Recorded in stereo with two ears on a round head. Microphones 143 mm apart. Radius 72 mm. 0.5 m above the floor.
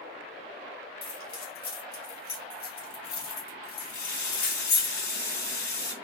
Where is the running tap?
75° left (ahead or behind), 3 m.